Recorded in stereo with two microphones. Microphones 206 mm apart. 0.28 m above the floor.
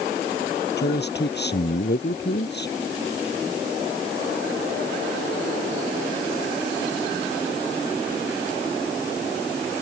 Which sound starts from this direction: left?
A man speaking, at 0.8 s.